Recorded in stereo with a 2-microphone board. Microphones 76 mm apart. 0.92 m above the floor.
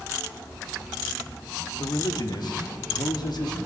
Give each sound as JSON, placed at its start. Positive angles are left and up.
{"t": 1.8, "sound": "a man speaking", "side_deg": 65, "distance_m": 1.3}